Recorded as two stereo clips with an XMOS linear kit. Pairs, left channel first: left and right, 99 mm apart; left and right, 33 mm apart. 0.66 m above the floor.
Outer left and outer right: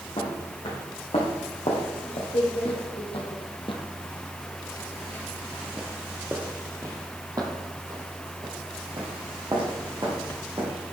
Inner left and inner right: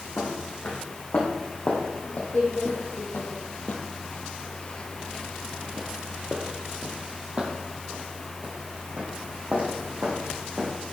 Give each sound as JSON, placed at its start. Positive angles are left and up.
{"t": 0.2, "sound": "footsteps", "side_deg": 70, "distance_m": 3.0}